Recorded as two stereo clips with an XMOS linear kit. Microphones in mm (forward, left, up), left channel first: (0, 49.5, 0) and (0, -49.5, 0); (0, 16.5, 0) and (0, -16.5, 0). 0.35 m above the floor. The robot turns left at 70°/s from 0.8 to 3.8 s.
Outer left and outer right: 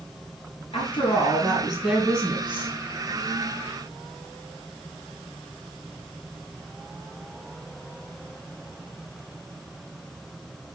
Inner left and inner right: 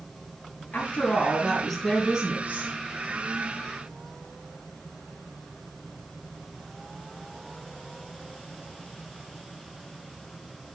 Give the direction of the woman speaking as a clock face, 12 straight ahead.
10 o'clock.